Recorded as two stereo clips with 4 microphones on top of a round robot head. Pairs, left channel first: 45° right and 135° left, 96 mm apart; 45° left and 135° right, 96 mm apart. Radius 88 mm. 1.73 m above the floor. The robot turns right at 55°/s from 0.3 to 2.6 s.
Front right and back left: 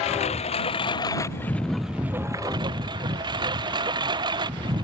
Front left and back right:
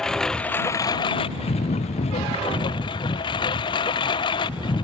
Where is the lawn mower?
40° right; by 4.8 s 90° left.